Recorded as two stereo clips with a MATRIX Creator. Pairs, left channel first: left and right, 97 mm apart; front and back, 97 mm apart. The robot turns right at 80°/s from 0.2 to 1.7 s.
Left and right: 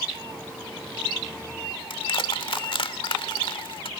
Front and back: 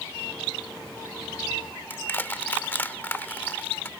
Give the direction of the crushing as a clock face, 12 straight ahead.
10 o'clock.